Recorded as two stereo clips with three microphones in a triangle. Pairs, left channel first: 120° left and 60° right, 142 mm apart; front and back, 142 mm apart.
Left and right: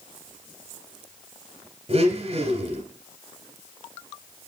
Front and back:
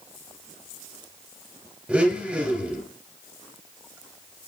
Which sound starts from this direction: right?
A blender, at 1.9 s.